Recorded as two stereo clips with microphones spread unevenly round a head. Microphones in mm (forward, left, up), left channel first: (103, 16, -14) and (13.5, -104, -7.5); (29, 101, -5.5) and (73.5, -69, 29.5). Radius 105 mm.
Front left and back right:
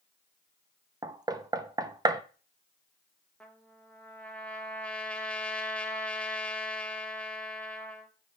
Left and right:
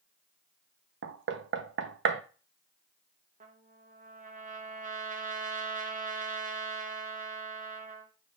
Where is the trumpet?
30° right, 1.6 m.